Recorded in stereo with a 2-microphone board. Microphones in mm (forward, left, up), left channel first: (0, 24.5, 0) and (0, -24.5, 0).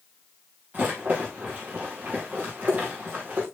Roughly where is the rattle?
Right.